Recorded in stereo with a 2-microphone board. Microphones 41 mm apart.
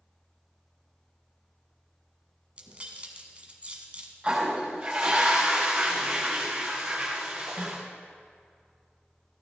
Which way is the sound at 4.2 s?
20° right (ahead or behind).